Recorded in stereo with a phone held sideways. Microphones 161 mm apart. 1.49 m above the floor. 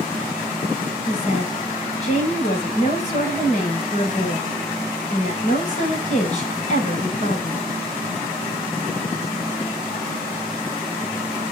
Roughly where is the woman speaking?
Left.